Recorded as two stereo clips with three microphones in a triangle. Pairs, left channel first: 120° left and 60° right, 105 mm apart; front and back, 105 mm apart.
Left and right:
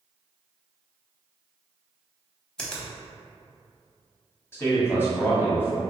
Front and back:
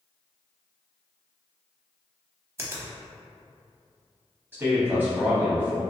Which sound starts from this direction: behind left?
A man speaking, at 4.5 s.